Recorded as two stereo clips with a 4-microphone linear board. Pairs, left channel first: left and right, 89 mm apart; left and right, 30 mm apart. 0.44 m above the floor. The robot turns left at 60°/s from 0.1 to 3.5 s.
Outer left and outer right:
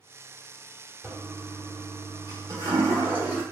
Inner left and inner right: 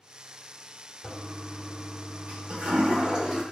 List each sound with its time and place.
1.0 s a toilet flushing: 20° right, 0.9 m; by 3.4 s 165° right, 0.9 m